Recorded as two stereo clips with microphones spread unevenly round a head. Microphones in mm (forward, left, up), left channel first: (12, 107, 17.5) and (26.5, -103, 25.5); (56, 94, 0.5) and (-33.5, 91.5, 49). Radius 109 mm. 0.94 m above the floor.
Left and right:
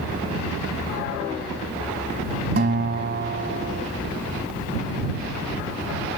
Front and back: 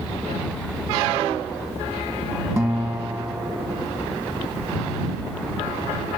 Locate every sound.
2.6 s a guitar: 125° right